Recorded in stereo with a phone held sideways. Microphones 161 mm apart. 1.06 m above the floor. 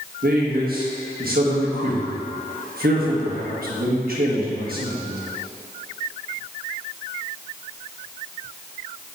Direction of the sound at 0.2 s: 70° right (ahead or behind).